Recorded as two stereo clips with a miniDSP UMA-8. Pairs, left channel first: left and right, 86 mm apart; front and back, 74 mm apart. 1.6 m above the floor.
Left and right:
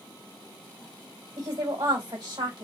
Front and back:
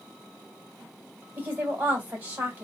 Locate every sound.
1.4 s a woman speaking: 110° right, 1.8 m